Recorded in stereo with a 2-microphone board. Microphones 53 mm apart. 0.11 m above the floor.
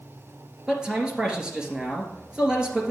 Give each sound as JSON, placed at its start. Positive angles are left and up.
{"t": 0.7, "sound": "a man speaking", "side_deg": -15, "distance_m": 2.5}